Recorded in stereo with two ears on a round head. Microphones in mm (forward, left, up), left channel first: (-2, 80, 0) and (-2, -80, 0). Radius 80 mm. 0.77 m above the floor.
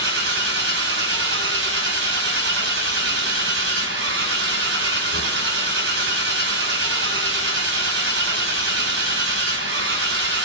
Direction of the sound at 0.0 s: 65° right (ahead or behind).